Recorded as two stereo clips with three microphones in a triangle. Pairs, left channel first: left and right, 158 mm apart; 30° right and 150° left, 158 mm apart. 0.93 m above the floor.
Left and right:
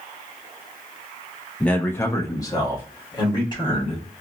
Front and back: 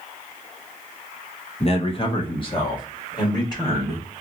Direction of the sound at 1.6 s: 5° left.